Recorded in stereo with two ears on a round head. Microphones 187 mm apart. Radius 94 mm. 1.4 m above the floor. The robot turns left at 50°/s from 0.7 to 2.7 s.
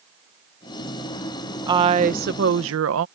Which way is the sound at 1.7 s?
20° right.